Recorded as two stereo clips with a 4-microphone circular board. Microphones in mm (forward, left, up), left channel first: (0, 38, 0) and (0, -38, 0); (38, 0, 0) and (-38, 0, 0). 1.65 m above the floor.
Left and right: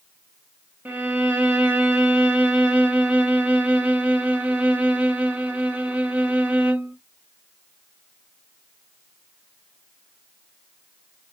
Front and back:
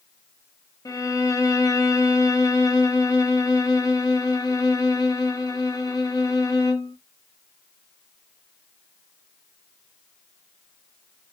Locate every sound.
0.8 s a violin: 25° right, 0.8 m